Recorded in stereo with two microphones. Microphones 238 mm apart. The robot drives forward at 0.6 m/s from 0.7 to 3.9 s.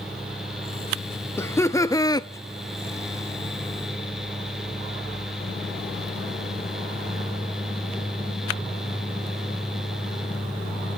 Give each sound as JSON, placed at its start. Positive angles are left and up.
{"t": 1.4, "sound": "laughter", "side_deg": 10, "distance_m": 1.1}